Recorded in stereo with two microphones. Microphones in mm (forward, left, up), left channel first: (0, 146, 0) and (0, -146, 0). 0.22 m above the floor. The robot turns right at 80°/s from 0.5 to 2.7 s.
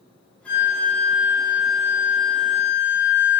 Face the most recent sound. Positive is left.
turn(degrees=-10)